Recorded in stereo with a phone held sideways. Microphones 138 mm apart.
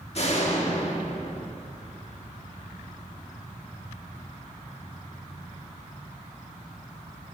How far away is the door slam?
About 1.5 m.